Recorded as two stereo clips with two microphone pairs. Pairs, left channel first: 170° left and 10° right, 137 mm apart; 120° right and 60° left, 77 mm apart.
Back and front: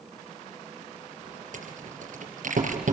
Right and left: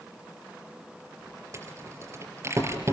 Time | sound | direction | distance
1.5 | a rattle | 10° left | 3.5 m